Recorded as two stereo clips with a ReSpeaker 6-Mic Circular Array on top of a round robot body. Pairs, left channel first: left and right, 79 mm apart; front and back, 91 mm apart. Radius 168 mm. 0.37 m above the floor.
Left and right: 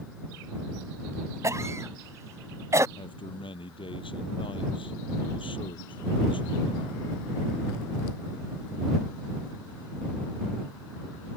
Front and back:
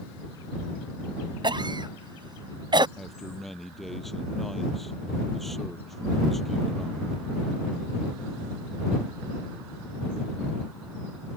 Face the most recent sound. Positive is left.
turn(degrees=90)